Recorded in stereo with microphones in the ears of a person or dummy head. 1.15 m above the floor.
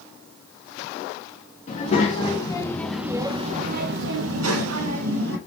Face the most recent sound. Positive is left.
turn(degrees=-85)